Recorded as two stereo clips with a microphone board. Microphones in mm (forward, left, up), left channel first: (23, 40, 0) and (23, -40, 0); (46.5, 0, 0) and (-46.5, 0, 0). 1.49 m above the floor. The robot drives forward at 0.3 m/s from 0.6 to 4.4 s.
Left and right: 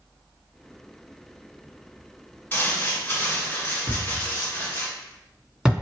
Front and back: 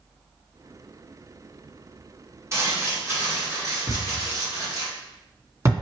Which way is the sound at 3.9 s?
160° right.